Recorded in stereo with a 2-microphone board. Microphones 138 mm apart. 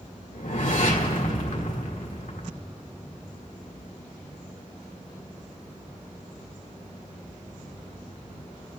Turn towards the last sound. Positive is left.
turn(degrees=80)